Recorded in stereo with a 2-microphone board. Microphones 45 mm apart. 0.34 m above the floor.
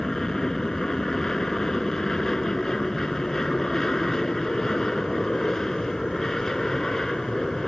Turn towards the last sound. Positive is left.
turn(degrees=10)  # may be behind; listen again after turning